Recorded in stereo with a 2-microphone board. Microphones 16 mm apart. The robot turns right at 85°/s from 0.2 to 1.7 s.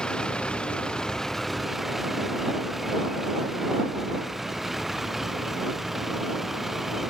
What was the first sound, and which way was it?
A vehicle, 65° left (ahead or behind).